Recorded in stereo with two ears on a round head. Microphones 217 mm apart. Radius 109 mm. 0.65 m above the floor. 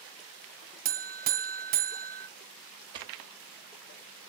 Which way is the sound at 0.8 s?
40° right (ahead or behind).